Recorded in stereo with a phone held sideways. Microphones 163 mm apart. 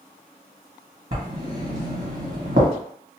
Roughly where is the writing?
Right.